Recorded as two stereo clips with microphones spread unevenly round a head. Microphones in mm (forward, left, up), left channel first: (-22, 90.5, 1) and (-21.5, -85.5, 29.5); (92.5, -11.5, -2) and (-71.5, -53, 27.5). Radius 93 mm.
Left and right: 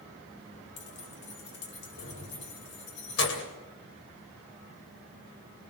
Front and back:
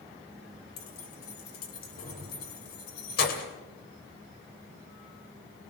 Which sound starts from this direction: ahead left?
Keys jangling, at 0.8 s.